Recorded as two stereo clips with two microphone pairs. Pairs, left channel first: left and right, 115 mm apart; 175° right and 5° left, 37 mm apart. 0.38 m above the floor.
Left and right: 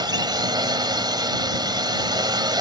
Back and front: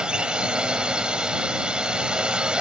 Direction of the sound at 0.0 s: 50° right.